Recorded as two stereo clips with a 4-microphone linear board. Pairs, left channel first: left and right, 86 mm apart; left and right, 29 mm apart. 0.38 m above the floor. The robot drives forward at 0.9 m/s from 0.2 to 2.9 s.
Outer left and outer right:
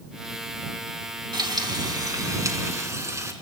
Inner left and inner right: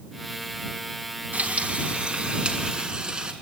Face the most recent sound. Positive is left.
turn(degrees=-35)  # may be behind; listen again after turning